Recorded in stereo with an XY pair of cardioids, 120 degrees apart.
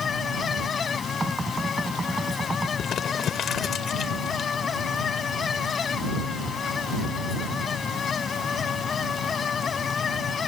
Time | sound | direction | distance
0.0 | a fan | 40° left | ?
1.2 | knocking | 15° right | ?
2.8 | crumpling | 55° left | ?